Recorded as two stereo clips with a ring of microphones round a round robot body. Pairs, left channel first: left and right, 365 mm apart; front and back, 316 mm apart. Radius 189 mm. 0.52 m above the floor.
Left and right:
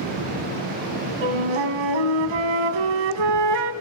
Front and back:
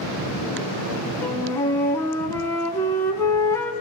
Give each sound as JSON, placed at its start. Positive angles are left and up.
{"t": 1.2, "sound": "a flute", "azimuth_deg": -85, "distance_m": 2.0}